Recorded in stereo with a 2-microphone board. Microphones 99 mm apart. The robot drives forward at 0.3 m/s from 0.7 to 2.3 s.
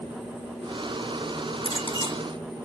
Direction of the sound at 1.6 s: 70° left (ahead or behind).